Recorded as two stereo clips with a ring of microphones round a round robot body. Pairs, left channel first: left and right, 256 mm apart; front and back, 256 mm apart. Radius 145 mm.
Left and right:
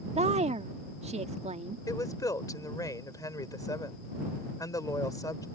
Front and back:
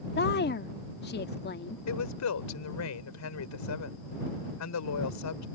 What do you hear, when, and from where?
0.2 s a woman speaking: 35° right
1.9 s a woman speaking: 15° left